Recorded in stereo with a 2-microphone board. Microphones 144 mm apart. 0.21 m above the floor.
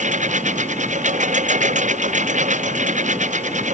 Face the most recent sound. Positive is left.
turn(degrees=-55)  # may be behind; listen again after turning